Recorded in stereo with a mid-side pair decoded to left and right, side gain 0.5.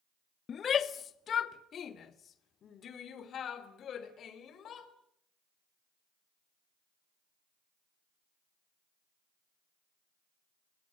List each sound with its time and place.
0.5 s a shout: 45° left, 1.1 m; by 4.9 s 55° left, 4.5 m